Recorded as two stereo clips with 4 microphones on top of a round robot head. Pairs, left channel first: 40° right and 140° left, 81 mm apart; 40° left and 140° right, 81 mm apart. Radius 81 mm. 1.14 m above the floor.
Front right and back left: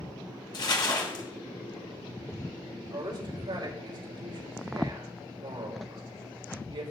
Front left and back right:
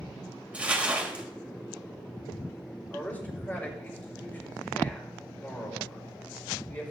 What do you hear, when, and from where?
0.5 s crumpling: 65° right, 2.5 m
2.9 s a man speaking: 110° left, 5.5 m